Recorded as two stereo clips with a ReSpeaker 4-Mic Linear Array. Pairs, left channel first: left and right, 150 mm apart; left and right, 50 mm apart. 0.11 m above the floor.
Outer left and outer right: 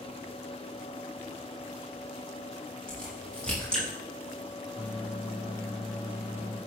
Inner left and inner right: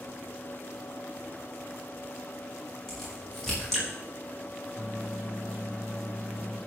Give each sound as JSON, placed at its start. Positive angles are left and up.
{"t": 2.9, "sound": "a crack", "side_deg": 5, "distance_m": 6.0}
{"t": 4.8, "sound": "a microwave", "side_deg": 0, "distance_m": 7.5}